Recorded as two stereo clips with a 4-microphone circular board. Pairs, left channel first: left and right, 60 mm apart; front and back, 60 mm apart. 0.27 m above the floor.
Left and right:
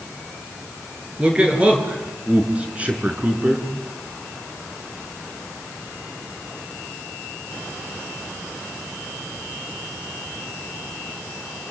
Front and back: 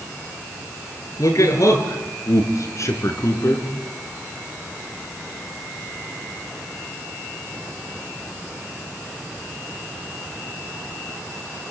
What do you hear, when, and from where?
1.2 s a man speaking: 20° right, 5.5 m; by 3.7 s 25° right, 4 m